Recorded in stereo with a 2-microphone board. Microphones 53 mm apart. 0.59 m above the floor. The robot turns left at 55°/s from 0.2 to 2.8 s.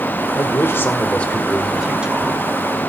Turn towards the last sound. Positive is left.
turn(degrees=-65)